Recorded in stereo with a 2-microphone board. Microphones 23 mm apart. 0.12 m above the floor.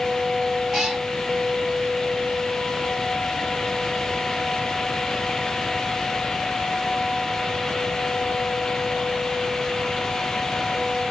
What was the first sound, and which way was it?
A cat meowing, 15° right (ahead or behind).